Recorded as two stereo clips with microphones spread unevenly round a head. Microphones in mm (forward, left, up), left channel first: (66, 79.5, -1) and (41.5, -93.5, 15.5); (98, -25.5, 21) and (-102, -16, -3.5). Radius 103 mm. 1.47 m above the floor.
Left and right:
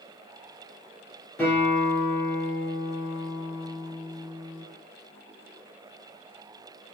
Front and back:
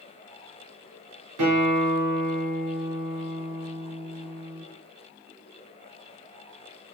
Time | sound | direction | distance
1.4 | a guitar | 165° left | 4.5 m